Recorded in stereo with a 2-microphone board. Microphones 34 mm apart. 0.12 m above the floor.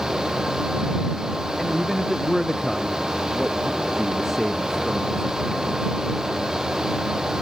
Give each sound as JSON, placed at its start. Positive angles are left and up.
{"t": 1.6, "sound": "a man speaking", "side_deg": 0}